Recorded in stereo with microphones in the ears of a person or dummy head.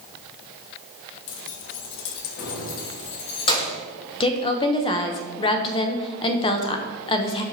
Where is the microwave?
I don't hear a microwave.